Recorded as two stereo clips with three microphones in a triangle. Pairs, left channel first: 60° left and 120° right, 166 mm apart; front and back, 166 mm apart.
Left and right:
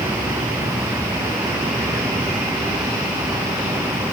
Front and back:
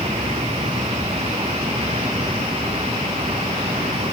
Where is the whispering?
I don't hear whispering.